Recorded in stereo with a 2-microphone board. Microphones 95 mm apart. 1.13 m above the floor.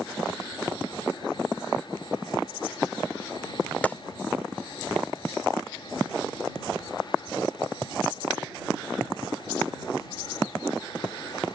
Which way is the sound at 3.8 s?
15° left (ahead or behind).